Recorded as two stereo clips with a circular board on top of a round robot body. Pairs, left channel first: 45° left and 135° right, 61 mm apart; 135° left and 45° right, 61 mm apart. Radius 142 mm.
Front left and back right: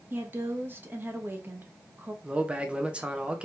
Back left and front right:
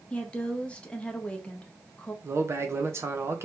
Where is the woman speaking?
165° right, 1.1 m.